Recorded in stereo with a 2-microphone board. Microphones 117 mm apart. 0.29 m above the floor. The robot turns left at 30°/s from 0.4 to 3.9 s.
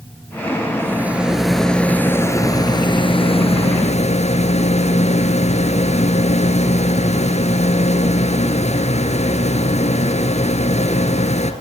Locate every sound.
0.8 s a rattle: 160° right, 2.5 m; by 11.5 s 110° left, 2.5 m